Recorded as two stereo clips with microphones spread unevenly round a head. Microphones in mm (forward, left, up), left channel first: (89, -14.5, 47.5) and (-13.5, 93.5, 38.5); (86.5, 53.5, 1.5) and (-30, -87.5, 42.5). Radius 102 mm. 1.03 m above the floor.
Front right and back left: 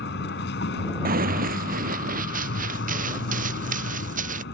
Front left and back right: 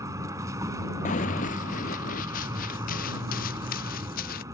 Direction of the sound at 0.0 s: 60° right.